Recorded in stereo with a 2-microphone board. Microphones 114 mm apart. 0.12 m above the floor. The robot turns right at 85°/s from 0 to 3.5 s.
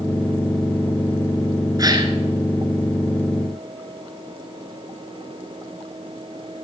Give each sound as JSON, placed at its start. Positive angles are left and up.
{"t": 1.8, "sound": "a gasp", "azimuth_deg": -125, "distance_m": 1.2}